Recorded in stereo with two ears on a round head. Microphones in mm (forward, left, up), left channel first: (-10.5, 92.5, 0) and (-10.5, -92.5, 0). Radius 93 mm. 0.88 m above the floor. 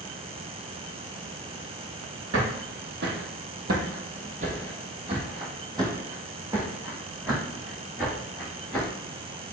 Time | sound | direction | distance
2.3 | footsteps | 60° right (ahead or behind) | 1.6 m